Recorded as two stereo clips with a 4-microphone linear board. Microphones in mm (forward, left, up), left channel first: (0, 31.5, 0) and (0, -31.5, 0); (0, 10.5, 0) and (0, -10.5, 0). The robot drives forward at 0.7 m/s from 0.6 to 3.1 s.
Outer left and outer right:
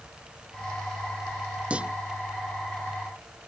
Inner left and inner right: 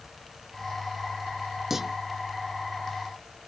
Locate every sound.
1.7 s a clunk: 20° right (ahead or behind)